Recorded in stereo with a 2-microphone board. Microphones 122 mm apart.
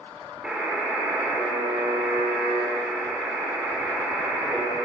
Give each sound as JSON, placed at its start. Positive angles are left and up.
{"t": 0.4, "sound": "a buzzer", "side_deg": -10, "distance_m": 1.8}